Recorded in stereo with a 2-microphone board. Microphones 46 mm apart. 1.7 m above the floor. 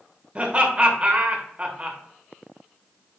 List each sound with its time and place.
0.3 s laughter: 25° right (ahead or behind), 1.0 m